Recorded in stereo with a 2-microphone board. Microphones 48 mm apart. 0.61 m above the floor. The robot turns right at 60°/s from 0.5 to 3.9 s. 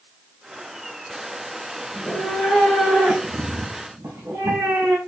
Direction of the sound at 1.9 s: 145° left.